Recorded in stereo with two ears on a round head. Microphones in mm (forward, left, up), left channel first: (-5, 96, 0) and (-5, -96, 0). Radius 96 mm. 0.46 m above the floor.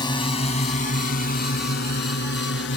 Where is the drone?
20° left (ahead or behind); by 2.8 s 60° left (ahead or behind).